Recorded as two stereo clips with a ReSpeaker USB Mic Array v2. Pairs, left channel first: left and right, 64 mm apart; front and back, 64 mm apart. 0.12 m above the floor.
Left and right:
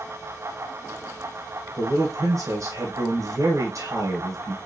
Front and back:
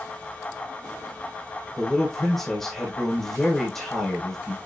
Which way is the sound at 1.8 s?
85° right.